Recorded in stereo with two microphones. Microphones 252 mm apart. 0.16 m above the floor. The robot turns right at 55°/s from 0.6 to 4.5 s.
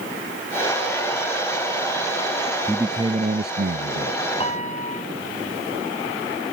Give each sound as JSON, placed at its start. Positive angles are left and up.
{"t": 2.7, "sound": "a man speaking", "azimuth_deg": 180}
{"t": 4.4, "sound": "a piano", "side_deg": 25}